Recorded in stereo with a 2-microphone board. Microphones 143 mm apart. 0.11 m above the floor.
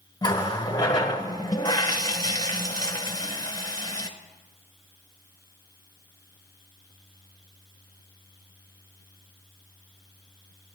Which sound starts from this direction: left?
A running tap, at 0.2 s.